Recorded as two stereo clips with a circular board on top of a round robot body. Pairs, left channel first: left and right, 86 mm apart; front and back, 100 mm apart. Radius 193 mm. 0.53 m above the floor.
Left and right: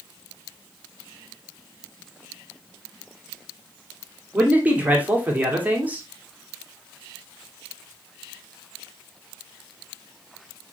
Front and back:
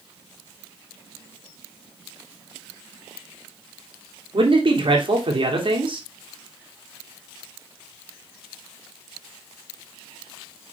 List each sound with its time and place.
4.3 s a man speaking: 160° right, 2.5 m